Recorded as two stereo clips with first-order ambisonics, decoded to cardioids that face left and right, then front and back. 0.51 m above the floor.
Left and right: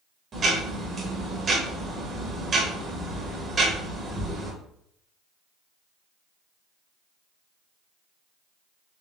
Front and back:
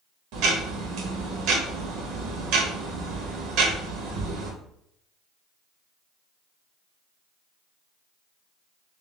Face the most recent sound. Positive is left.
turn(degrees=-155)